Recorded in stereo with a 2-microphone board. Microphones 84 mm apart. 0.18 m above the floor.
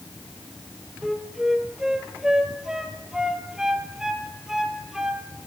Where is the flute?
5° right (ahead or behind), 1.8 m.